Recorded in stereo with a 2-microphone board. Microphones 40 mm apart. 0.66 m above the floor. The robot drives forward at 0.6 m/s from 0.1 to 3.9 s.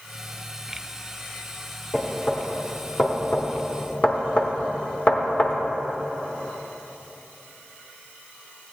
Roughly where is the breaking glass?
No breaking glass in this recording.